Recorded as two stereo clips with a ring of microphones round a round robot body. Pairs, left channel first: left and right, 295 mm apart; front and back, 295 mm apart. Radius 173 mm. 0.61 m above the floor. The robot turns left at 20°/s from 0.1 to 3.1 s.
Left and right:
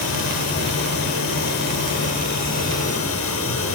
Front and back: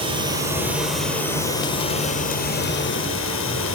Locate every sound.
0.0 s running water: 105° left, 6.5 m; by 3.8 s 45° left, 6.5 m